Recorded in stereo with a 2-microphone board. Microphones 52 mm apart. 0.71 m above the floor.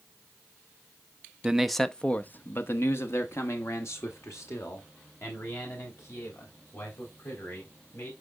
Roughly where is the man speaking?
Centre.